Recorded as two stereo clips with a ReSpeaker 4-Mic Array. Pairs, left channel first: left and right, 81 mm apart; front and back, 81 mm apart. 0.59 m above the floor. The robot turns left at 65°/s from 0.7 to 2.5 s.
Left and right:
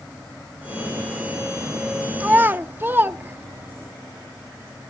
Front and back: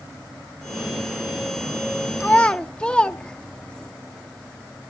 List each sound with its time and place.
2.2 s a child speaking: 45° right, 0.7 m; by 3.9 s 65° right, 0.7 m